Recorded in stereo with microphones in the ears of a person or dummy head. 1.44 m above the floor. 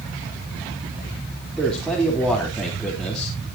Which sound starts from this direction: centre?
A man speaking, at 1.6 s.